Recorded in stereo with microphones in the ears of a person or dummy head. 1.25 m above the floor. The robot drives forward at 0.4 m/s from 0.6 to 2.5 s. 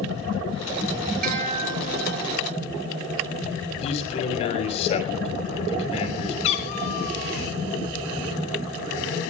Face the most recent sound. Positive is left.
turn(degrees=35)  # may be behind; listen again after turning